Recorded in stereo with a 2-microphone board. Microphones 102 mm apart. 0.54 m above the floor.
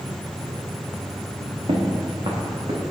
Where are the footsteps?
65° right (ahead or behind), 2.5 m; by 2.8 s 50° right (ahead or behind), 3.5 m.